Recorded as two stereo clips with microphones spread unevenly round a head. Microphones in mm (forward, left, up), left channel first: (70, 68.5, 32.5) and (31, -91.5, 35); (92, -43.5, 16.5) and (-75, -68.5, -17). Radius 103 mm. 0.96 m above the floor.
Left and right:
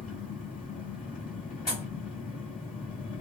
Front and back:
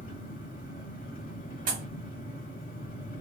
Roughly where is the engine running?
Ahead left.